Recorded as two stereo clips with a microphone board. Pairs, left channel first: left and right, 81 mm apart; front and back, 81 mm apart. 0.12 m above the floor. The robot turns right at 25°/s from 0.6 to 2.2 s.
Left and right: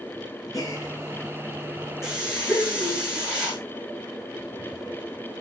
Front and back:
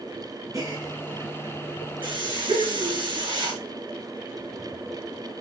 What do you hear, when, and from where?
0.5 s a gasp: 135° left, 3.5 m; by 3.0 s 175° left, 3.5 m
2.0 s a hiss: 175° right, 5.5 m; by 3.6 s 170° right, 5.5 m